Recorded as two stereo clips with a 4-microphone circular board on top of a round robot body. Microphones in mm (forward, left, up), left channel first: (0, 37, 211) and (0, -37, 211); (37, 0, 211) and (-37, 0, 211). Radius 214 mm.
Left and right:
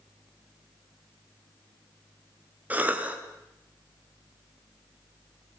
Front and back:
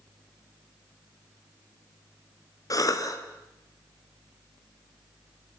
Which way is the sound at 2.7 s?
25° right.